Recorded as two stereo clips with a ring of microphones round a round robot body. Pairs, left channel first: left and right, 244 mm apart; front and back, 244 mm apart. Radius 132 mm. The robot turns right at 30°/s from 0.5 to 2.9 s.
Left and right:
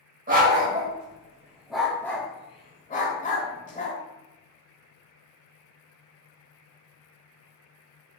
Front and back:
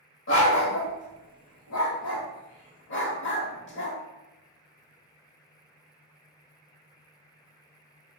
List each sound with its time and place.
0.3 s a dog barking: 40° right, 0.9 m; by 4.0 s 35° left, 0.9 m